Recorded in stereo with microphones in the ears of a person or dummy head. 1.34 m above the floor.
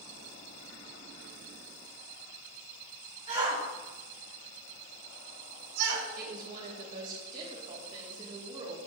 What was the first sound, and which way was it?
A shout, 35° right (ahead or behind).